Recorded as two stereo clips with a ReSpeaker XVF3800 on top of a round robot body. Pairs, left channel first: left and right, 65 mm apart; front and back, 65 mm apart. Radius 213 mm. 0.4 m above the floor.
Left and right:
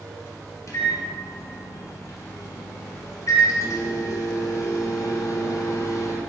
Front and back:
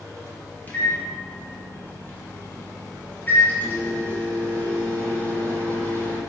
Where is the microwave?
60° left, 1.0 m.